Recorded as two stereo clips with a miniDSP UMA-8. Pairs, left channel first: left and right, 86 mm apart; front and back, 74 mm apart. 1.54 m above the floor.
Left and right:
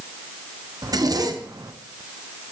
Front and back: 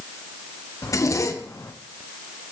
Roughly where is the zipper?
Ahead right.